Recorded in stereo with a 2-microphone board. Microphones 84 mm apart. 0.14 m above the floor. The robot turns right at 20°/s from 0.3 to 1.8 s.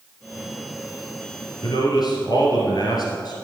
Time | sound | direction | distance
1.6 | a man speaking | 50° left (ahead or behind) | 2.5 m